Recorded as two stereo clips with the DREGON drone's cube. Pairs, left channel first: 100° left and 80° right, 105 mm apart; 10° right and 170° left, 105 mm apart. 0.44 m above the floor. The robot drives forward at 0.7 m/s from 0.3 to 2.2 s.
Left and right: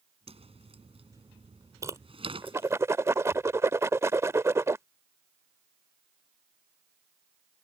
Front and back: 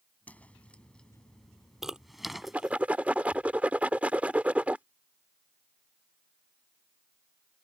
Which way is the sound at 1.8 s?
105° right.